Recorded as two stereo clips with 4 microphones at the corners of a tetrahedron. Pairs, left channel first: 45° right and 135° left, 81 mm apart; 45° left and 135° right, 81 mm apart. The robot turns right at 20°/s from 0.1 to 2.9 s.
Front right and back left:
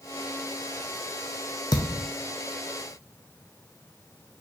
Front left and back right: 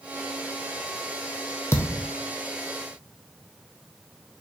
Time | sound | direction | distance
1.7 | a thud | 10° right | 0.7 m